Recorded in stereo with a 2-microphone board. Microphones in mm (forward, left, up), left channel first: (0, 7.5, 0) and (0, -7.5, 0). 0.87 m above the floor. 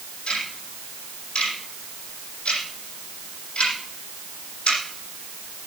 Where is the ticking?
80° left, 7 m.